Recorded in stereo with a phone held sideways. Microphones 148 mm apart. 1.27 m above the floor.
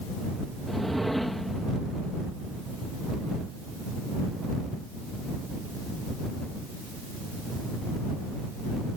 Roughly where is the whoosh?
Centre.